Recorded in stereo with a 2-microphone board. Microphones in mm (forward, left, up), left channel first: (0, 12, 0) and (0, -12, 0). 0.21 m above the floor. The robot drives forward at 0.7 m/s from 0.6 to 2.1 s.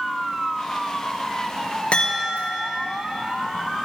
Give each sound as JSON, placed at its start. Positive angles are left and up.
{"t": 1.9, "sound": "a chime", "side_deg": 65, "distance_m": 4.0}